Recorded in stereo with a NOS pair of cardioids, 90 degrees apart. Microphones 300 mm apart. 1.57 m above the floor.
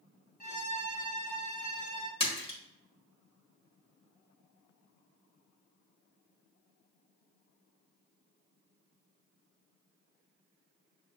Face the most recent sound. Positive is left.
turn(degrees=20)